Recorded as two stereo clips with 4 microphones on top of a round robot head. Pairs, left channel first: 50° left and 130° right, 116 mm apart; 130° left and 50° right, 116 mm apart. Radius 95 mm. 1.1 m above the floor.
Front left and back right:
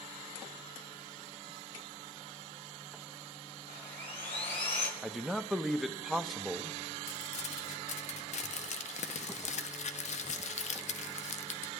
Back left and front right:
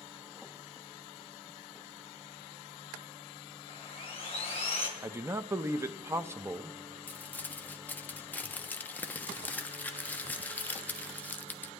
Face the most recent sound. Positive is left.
turn(degrees=55)